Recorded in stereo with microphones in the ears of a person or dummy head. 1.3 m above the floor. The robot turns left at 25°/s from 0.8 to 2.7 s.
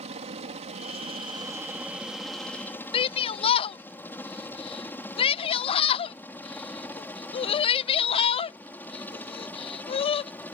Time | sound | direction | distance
0.0 | a helicopter | 30° right (ahead or behind) | ?
2.9 | a shout | 25° left (ahead or behind) | ?